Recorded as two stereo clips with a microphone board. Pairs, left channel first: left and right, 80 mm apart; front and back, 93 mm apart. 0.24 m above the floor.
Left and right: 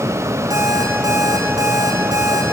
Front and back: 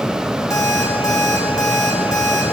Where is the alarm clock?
50° right, 7 m.